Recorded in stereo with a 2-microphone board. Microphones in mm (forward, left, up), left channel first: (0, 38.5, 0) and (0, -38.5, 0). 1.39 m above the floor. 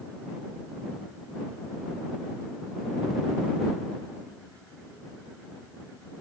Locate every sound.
Only background noise.